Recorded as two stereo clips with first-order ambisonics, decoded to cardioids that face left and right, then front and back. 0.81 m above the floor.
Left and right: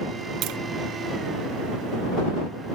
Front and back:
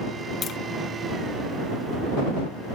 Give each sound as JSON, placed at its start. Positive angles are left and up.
{"t": 0.4, "sound": "tapping", "azimuth_deg": -60}